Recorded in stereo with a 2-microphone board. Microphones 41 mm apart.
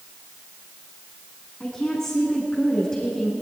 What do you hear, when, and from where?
1.6 s a woman speaking: 15° left (ahead or behind), 7 m